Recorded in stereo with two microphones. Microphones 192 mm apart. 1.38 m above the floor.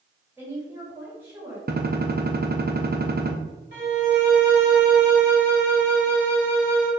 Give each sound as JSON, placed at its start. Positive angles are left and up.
{"t": 0.4, "sound": "a woman speaking", "side_deg": -10, "distance_m": 3.0}
{"t": 1.7, "sound": "a gunshot", "side_deg": -50, "distance_m": 0.8}
{"t": 3.7, "sound": "a violin", "side_deg": -55, "distance_m": 2.5}